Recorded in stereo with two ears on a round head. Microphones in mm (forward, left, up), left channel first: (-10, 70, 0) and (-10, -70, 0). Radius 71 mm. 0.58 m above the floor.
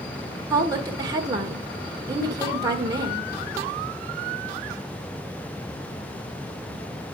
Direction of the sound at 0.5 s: 25° right (ahead or behind).